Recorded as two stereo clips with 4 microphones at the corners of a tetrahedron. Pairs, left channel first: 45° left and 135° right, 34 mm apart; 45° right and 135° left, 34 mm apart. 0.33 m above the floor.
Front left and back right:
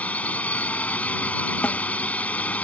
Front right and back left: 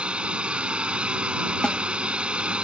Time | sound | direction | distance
0.0 | a drone | 85° left | ?
1.6 | a snare drum | 15° left | ?